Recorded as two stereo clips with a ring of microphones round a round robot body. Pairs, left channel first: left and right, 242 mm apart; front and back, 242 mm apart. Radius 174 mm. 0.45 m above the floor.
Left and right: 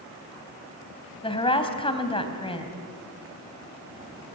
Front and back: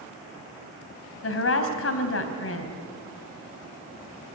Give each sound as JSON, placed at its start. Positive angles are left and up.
{"t": 1.2, "sound": "a woman speaking", "azimuth_deg": 20, "distance_m": 3.5}